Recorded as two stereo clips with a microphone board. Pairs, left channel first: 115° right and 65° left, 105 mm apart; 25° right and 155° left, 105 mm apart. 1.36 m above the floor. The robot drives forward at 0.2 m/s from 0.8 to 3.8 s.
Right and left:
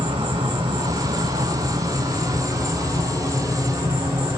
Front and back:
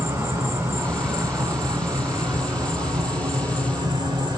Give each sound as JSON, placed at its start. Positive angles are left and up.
{"t": 0.0, "sound": "an insect", "azimuth_deg": 100, "distance_m": 1.9}